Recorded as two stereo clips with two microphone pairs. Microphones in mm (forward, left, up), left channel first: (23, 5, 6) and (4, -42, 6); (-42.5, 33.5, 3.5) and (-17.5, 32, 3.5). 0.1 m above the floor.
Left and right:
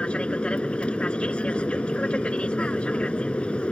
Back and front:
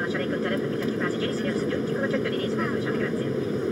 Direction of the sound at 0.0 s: 60° left.